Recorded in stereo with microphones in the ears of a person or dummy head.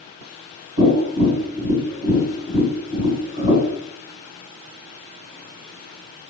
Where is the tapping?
55° right (ahead or behind), 1.9 m.